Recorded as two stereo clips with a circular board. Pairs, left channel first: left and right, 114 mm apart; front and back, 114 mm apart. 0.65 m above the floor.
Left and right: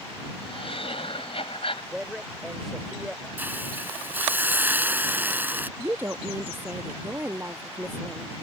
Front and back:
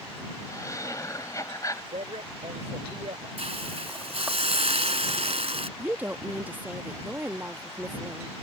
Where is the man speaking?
175° right.